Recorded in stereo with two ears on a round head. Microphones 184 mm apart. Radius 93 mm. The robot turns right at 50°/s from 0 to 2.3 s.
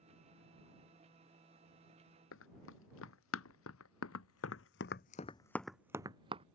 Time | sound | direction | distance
2.3 | running footsteps | 70° left (ahead or behind) | ?